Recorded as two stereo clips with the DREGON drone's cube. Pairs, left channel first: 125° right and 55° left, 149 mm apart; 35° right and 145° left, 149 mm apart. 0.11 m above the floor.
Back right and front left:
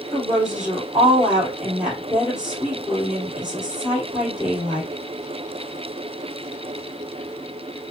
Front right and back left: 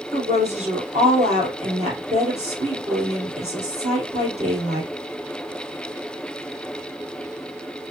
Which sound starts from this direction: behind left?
A woman speaking, at 0.1 s.